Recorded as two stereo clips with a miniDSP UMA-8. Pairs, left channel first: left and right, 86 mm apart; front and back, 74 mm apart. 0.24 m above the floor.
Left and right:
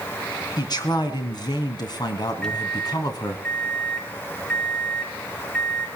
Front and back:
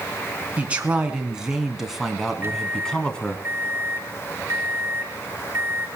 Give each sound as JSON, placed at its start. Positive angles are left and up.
{"t": 0.6, "sound": "a man speaking", "azimuth_deg": 115, "distance_m": 3.0}
{"t": 2.4, "sound": "a microwave", "azimuth_deg": 165, "distance_m": 0.9}